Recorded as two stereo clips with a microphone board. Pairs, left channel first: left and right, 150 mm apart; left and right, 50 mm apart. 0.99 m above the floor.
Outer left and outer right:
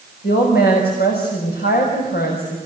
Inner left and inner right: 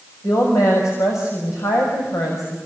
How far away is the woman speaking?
About 6 m.